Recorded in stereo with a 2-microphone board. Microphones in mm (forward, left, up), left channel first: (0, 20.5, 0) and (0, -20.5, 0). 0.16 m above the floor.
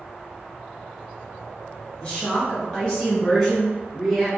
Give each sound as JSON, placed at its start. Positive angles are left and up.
{"t": 2.0, "sound": "a woman speaking", "side_deg": 20, "distance_m": 1.4}